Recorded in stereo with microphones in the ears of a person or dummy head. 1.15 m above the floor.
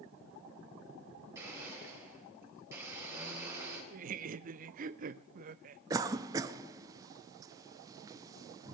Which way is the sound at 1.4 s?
15° right (ahead or behind).